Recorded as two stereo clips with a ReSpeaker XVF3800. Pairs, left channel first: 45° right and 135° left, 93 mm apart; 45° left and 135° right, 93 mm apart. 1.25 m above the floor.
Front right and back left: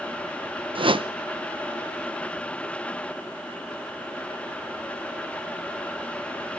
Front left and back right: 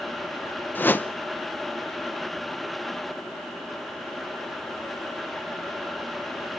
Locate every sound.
0.8 s a whoosh: 115° left, 0.8 m